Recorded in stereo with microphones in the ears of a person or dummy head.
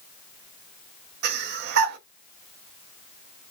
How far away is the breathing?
About 0.7 m.